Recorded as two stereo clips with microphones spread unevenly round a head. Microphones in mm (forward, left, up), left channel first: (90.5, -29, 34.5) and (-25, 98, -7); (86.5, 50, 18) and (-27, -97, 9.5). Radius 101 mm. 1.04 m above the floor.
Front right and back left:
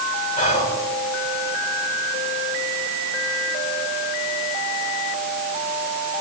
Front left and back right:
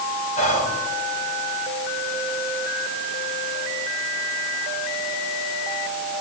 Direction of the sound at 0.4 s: Straight ahead.